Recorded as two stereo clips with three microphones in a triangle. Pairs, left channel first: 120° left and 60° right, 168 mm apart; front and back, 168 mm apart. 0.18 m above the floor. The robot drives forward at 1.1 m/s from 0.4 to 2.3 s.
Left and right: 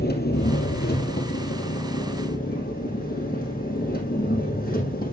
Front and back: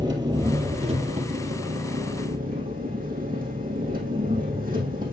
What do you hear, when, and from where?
0.0 s an engine running: 115° left, 2 m; by 5.1 s 150° left, 3.5 m